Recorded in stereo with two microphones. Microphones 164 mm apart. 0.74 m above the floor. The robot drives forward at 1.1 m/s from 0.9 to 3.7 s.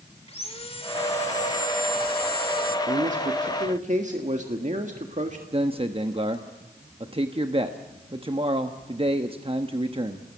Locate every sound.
0.3 s sawing: 35° left (ahead or behind), 2 m; by 2.8 s 65° left (ahead or behind), 1.4 m
2.9 s a man speaking: 45° right (ahead or behind), 1.6 m; by 5.4 s 50° right (ahead or behind), 1.6 m
5.5 s a man speaking: 35° right (ahead or behind), 1.0 m